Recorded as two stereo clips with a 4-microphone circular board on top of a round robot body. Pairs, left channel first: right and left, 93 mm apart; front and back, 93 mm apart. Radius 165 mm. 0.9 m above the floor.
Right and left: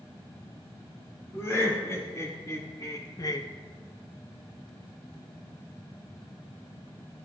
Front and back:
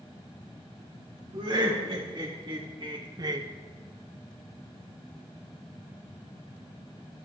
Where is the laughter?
150° right, 3 m; by 3.5 s 130° right, 0.7 m.